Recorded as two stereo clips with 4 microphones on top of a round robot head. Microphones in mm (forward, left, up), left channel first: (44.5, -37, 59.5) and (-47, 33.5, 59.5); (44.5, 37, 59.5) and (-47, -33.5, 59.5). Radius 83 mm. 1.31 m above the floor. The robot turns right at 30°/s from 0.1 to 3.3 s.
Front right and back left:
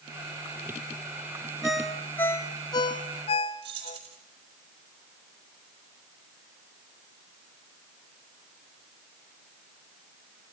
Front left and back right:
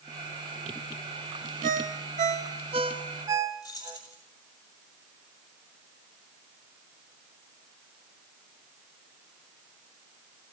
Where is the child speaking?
No child speaking in this recording.